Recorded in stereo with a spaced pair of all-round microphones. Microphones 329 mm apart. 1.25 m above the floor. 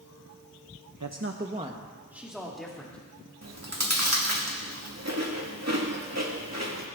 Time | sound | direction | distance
1.0 | a man speaking | 65° right (ahead or behind) | 0.7 m
3.4 | chewing | 50° right (ahead or behind) | 2 m